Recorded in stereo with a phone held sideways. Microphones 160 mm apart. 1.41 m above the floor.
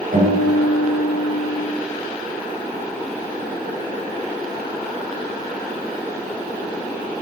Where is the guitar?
70° right (ahead or behind), 3.5 m.